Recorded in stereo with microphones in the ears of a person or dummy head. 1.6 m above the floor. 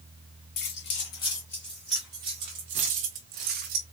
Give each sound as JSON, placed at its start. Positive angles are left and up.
{"t": 0.6, "sound": "keys jangling", "side_deg": 40, "distance_m": 1.0}